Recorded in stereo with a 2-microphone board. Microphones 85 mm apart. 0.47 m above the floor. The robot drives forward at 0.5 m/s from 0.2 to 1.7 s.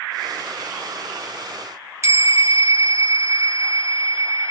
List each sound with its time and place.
2.0 s a bell: 35° right (ahead or behind), 1.0 m